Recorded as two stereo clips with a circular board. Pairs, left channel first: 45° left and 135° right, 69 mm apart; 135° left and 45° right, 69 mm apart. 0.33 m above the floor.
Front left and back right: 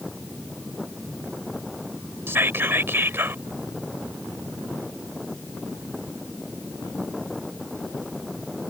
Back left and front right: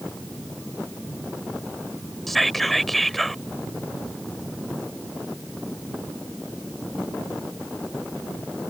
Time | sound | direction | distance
2.3 | whispering | 140° right | ?